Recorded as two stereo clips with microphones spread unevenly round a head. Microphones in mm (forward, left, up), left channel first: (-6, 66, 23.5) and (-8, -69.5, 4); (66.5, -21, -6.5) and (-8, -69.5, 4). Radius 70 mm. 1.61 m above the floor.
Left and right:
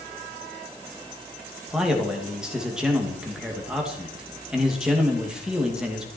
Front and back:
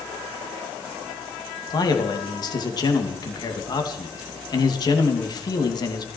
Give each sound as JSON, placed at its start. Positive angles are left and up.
{"t": 1.7, "sound": "a man speaking", "azimuth_deg": -5, "distance_m": 2.5}